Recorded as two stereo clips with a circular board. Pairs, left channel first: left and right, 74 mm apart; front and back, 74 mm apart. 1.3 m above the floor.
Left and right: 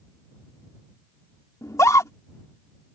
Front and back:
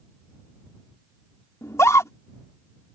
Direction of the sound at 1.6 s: 45° left.